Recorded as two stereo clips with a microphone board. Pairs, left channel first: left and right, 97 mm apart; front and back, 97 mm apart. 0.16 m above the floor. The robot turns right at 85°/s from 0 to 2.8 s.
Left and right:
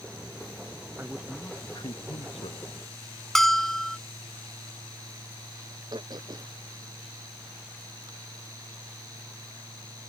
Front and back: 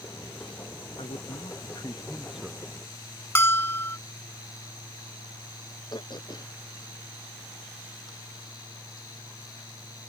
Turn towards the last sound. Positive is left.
turn(degrees=-45)